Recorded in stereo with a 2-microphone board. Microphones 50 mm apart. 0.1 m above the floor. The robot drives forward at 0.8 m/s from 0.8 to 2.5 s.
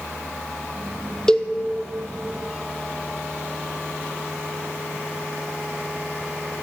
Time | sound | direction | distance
1.3 | a cowbell | 15° left (ahead or behind) | 0.7 m